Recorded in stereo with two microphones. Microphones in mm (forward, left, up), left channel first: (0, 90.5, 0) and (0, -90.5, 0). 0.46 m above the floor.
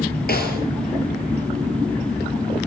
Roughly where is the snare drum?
Left.